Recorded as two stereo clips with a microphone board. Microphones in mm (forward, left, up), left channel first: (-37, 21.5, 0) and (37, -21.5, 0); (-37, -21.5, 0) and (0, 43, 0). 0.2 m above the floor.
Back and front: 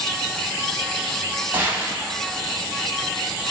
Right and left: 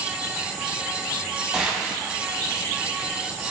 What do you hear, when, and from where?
1.5 s a gunshot: 5° right, 0.7 m